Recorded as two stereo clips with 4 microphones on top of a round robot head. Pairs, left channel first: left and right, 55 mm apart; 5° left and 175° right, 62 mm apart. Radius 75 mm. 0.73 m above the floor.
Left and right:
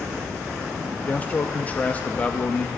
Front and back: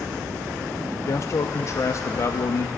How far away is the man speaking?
About 0.7 m.